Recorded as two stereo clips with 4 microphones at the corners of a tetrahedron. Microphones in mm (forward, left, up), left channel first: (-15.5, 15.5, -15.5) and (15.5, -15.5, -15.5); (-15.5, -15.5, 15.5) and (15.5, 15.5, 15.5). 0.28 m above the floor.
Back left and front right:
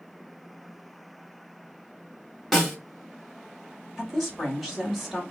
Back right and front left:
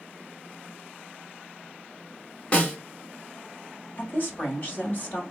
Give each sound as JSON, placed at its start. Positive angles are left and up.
{"t": 2.5, "sound": "a snare drum", "azimuth_deg": -145, "distance_m": 1.2}
{"t": 4.0, "sound": "a woman speaking", "azimuth_deg": -140, "distance_m": 1.7}